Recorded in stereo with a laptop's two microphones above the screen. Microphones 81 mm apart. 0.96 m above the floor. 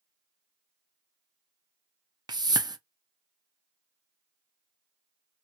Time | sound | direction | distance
2.3 | a whoosh | 55° right (ahead or behind) | 0.5 m